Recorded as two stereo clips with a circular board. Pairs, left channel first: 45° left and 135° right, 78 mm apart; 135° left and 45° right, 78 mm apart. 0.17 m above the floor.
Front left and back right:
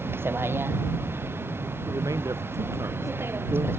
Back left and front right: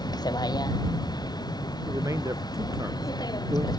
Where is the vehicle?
165° left.